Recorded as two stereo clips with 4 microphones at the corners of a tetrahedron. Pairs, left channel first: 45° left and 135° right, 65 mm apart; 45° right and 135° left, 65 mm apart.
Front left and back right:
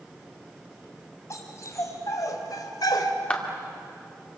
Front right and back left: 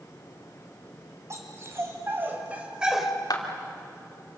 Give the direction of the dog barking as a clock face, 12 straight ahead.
9 o'clock.